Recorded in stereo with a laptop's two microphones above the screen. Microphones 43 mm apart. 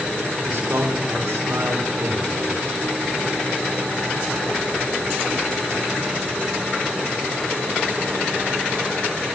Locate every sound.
0.4 s a man speaking: 80° right, 4 m